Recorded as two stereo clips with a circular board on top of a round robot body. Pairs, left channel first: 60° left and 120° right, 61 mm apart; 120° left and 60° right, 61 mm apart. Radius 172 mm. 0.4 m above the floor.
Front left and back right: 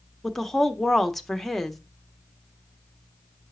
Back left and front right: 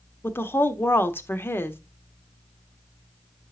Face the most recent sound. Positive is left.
turn(degrees=145)